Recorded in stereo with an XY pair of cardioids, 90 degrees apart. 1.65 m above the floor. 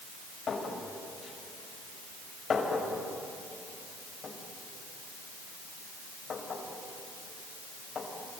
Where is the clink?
65° left, 4.5 m.